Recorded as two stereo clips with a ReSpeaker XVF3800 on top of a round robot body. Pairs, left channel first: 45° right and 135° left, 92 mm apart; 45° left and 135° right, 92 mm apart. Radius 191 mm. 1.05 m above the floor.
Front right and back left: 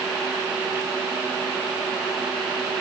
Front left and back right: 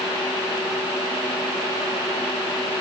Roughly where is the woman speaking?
No woman speaking in this recording.